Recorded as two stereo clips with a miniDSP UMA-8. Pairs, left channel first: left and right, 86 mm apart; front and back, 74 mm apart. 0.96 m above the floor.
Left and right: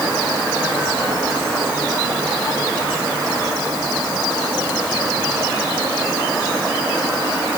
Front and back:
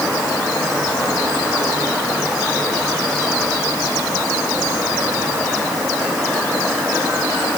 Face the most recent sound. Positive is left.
No sound to turn to.